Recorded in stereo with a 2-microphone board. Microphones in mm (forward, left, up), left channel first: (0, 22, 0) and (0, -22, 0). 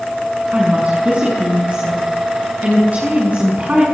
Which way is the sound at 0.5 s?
35° right (ahead or behind).